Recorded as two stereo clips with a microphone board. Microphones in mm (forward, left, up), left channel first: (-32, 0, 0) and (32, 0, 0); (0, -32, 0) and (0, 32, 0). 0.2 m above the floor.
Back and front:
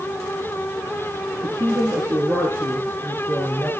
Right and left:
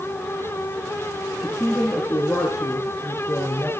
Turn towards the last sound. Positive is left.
turn(degrees=-65)